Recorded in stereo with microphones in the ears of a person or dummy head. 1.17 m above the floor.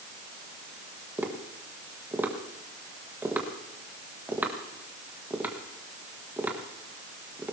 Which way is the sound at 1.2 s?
5° right (ahead or behind).